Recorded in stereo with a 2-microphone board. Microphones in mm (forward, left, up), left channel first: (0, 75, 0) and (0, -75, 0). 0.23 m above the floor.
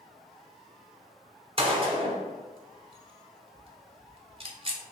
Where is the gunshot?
40° right (ahead or behind), 0.7 m.